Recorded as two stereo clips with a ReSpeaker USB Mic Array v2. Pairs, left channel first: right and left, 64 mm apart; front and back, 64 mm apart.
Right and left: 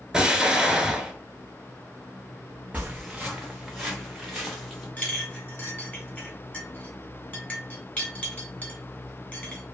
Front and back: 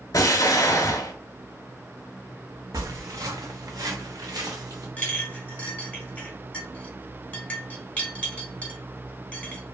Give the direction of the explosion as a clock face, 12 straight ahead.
12 o'clock.